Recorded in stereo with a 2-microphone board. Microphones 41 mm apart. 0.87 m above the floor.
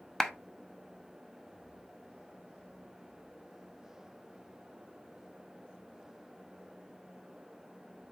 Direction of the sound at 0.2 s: 10° left (ahead or behind).